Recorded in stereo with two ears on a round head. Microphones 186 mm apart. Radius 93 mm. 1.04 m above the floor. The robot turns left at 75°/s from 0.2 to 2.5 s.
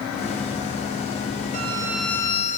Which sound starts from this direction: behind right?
A violin, at 1.5 s.